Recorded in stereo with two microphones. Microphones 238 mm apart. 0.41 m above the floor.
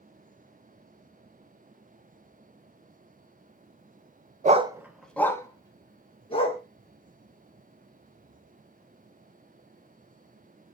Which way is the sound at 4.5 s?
35° right (ahead or behind).